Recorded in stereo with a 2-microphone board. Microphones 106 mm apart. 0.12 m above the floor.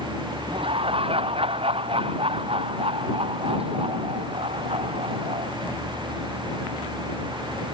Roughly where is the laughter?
Right.